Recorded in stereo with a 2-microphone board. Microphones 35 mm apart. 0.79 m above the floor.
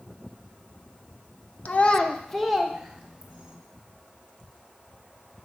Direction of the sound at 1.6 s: 50° left (ahead or behind).